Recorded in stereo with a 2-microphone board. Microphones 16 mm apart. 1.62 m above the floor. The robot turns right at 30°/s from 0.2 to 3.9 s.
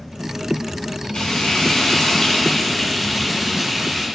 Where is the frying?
120° left, 6.5 m; by 4.1 s 155° right, 6.5 m.